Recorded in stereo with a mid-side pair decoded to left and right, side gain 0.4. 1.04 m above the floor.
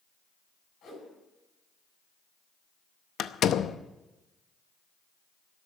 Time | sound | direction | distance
0.8 | a whoosh | 70° left | 8 m
3.2 | a door slam | 70° left | 0.7 m